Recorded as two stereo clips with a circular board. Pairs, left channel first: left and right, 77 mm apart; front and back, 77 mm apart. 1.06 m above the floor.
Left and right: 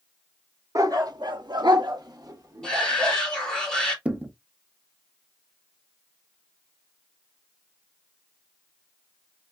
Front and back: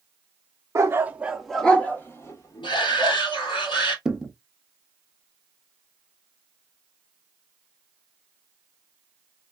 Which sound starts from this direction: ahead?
A shout, at 2.6 s.